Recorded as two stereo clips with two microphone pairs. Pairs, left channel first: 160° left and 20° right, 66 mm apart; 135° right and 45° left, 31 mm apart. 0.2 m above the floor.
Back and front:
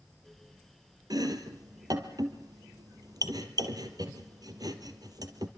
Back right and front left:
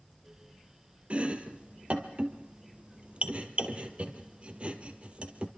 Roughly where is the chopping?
Ahead.